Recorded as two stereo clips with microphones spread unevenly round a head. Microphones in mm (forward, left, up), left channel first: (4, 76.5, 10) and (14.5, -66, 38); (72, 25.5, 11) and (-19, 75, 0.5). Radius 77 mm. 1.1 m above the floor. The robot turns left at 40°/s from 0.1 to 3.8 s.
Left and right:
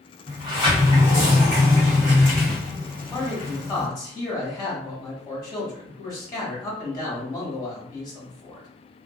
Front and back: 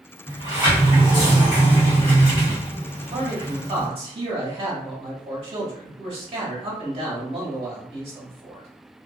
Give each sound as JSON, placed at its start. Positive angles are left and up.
{"t": 0.3, "sound": "a sliding door", "azimuth_deg": -15, "distance_m": 1.5}
{"t": 3.1, "sound": "a man speaking", "azimuth_deg": 180, "distance_m": 1.5}